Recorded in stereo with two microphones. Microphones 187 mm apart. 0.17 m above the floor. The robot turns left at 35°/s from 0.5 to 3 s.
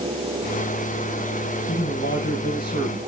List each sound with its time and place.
1.7 s a man speaking: 95° left, 7 m; by 3.0 s 50° left, 7 m